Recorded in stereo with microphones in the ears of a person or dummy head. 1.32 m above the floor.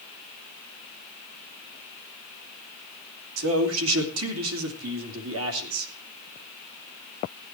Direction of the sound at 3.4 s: 80° right.